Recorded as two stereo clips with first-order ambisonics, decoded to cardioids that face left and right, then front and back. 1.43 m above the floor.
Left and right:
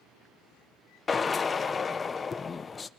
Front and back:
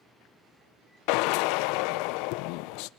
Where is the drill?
15° left, 0.6 m.